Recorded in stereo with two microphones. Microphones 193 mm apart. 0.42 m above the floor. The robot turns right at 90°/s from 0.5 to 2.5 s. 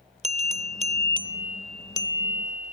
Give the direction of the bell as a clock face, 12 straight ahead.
3 o'clock.